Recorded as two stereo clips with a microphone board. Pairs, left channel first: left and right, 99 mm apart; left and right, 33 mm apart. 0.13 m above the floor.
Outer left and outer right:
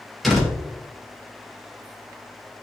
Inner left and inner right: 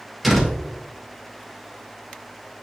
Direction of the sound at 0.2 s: Centre (ahead or behind).